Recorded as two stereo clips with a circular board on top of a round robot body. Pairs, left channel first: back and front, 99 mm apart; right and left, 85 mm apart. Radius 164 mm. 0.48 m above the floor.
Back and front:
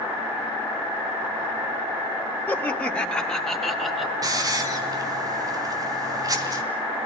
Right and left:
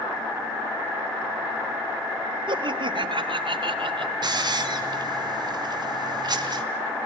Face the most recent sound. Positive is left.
turn(degrees=55)